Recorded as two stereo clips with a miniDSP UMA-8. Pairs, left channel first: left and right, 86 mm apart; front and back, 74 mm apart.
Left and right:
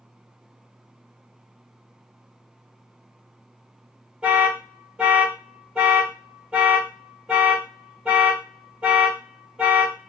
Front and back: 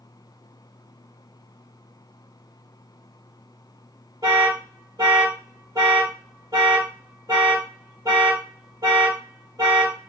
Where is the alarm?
165° right, 1.5 m.